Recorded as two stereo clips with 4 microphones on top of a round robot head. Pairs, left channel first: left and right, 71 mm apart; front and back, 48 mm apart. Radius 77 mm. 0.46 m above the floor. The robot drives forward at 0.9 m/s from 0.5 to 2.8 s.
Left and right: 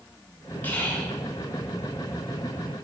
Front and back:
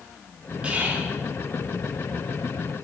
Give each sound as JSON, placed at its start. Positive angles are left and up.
{"t": 0.6, "sound": "whispering", "azimuth_deg": 130, "distance_m": 1.3}